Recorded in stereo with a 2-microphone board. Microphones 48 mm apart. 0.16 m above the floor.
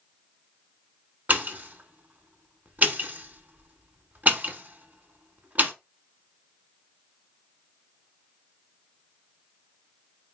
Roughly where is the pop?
Right.